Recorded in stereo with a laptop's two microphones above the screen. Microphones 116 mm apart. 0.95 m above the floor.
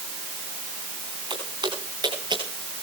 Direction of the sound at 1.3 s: 50° right (ahead or behind).